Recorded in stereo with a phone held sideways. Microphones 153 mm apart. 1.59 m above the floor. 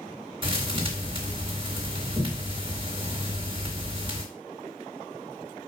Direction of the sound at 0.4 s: 35° right (ahead or behind).